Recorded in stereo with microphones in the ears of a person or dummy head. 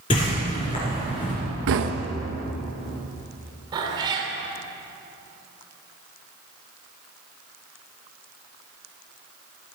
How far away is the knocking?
About 1.1 m.